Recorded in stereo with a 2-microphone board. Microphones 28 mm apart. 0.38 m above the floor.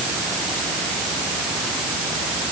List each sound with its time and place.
Only background noise.